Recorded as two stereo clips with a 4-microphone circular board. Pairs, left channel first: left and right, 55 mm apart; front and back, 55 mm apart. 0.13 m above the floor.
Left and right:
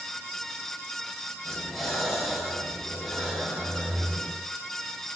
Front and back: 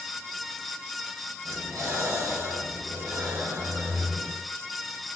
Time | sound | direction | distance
1.4 | breathing | 175° left | 3 m